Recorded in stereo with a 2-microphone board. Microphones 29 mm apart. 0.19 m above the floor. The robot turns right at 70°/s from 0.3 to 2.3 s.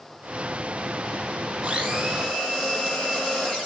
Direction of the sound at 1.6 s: 25° right.